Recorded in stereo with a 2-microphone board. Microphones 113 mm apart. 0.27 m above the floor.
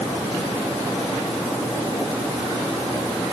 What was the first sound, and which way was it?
Only background noise.